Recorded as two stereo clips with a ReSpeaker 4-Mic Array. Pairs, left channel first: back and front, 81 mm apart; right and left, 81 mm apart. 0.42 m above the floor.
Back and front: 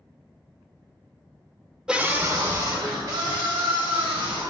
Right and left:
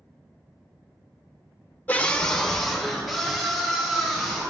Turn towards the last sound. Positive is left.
turn(degrees=5)